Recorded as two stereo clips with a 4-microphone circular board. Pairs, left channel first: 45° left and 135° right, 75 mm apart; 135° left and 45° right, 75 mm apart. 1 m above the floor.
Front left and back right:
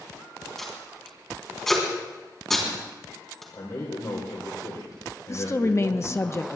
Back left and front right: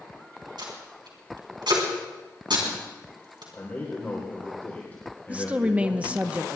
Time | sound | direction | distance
0.6 | tape being pulled | 40° right | 3.5 m
3.5 | a man speaking | 70° left | 3.5 m
5.3 | a woman speaking | 20° left | 0.8 m